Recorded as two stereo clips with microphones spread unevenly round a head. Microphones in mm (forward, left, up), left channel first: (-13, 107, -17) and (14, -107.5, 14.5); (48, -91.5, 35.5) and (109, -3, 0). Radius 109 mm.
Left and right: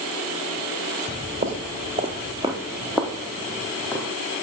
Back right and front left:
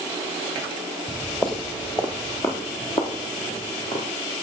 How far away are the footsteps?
About 1.7 m.